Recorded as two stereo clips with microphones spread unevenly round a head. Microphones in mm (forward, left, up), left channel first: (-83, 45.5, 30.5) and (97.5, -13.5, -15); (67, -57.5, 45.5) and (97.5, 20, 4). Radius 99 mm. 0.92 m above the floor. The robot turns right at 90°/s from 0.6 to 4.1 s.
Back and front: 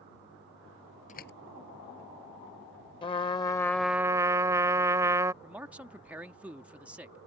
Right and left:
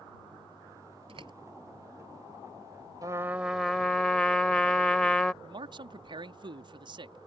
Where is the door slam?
110° left; by 1.3 s 130° left.